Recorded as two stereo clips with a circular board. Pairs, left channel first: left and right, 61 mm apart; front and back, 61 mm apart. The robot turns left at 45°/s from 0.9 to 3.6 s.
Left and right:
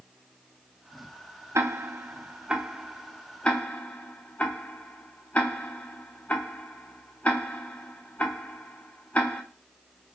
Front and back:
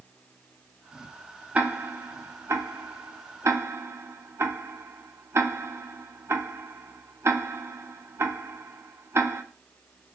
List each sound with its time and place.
1.6 s ticking: 120° right, 0.7 m; by 9.4 s 150° left, 0.7 m